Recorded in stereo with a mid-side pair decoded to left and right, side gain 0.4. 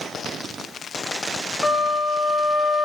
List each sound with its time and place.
1.6 s a flute: 20° left, 0.6 m